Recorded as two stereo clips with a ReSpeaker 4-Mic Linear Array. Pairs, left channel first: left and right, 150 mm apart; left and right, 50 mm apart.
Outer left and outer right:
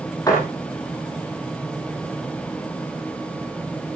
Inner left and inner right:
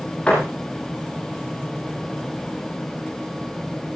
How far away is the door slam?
About 7 m.